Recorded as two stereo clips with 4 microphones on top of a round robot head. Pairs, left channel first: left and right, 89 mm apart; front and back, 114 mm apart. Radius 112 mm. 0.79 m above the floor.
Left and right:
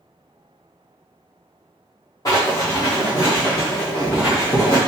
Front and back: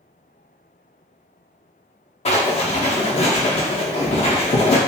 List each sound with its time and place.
2.2 s writing: 30° left, 0.6 m